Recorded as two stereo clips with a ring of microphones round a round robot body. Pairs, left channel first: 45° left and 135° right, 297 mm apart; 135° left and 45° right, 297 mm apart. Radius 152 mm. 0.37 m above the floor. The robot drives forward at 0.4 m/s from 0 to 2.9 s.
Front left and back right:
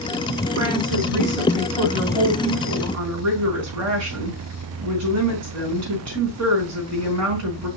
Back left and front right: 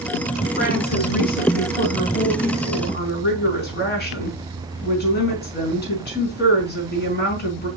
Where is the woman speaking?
165° right, 3.5 m; by 7.7 s 170° right, 4.5 m.